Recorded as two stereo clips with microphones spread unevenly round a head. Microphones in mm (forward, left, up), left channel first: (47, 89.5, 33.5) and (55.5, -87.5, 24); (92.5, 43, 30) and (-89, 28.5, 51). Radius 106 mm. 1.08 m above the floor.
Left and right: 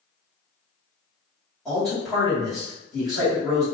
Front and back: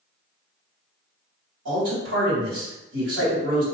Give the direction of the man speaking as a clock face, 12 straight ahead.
6 o'clock.